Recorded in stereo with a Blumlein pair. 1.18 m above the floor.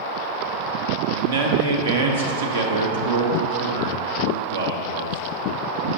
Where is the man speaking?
65° right, 1.2 m.